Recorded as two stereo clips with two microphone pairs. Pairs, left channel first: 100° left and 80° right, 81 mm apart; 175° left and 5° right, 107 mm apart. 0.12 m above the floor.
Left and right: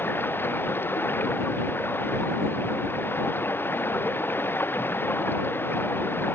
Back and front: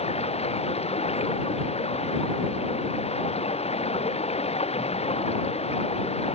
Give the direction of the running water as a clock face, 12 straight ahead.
7 o'clock.